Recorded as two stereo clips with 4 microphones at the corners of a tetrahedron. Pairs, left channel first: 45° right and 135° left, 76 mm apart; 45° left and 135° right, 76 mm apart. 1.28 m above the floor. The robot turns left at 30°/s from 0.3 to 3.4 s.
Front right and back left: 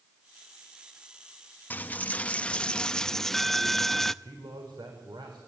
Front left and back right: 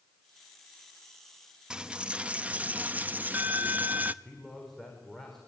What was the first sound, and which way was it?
A dropped coin, 75° right.